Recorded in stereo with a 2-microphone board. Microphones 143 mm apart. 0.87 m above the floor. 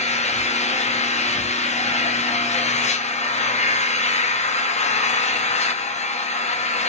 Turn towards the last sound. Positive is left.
turn(degrees=55)  # may be behind; listen again after turning